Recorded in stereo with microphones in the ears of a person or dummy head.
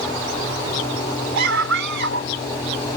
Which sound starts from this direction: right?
A scream, at 1.4 s.